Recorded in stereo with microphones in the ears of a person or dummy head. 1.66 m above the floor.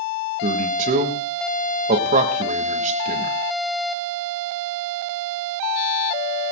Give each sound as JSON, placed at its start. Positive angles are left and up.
{"t": 0.4, "sound": "a man speaking", "side_deg": -45, "distance_m": 2.5}